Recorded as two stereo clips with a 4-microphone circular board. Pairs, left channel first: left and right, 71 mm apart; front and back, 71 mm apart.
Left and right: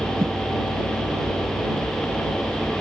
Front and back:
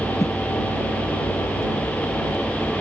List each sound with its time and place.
0.2 s a whoosh: 35° right